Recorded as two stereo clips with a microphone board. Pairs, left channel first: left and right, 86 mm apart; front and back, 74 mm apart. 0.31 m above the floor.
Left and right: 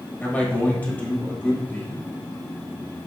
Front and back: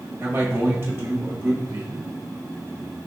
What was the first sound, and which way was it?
A man speaking, 145° left.